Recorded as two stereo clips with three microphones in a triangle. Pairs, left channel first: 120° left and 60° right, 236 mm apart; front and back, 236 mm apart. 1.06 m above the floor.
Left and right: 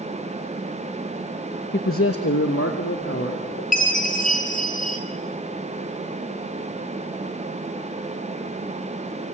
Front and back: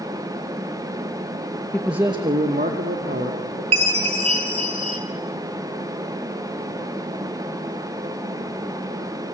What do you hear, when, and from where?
1.7 s a man speaking: 80° left, 0.9 m; by 3.6 s 145° left, 3 m
3.7 s a chime: 175° left, 3 m